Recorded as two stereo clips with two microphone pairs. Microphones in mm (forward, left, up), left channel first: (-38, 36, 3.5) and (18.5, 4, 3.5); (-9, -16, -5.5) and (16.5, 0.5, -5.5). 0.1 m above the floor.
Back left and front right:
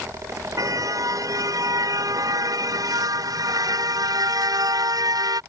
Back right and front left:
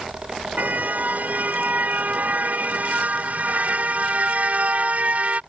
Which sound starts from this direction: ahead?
A car horn, at 0.6 s.